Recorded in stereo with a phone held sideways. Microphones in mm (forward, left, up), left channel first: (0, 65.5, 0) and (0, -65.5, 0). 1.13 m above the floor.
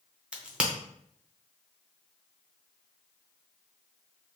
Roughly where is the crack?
Centre.